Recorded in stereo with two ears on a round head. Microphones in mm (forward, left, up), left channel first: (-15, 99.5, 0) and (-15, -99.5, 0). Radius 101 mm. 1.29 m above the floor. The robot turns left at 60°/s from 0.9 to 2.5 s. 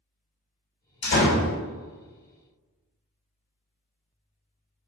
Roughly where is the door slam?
Behind left.